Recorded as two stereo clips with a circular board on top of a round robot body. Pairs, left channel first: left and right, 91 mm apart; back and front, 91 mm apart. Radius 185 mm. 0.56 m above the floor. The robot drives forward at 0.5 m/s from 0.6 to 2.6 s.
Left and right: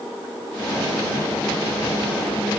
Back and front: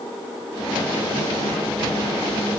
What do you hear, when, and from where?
Only background noise.